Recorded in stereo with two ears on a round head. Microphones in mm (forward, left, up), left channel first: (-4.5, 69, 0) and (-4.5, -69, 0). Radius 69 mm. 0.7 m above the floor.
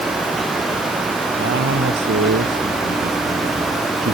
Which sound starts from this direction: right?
A man speaking, at 1.4 s.